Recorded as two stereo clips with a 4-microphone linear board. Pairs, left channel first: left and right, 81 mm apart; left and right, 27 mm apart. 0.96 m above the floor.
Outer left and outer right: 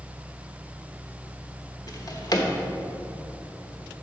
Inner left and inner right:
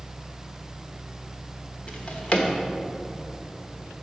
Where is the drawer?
50° left (ahead or behind), 1.1 m.